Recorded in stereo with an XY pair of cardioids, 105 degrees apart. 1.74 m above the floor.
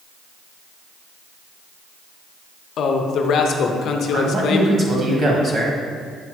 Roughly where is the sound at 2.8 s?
Ahead left.